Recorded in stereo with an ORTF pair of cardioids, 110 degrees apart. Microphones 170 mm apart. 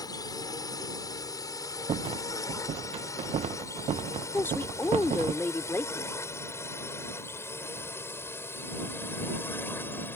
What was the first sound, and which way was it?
A drone, 25° left.